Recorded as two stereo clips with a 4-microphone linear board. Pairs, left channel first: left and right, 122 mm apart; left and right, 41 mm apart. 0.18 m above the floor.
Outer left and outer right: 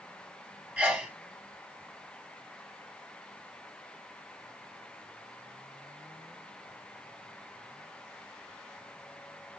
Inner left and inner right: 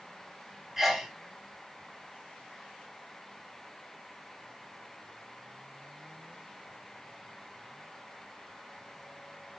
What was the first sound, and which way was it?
A sneeze, 10° right (ahead or behind).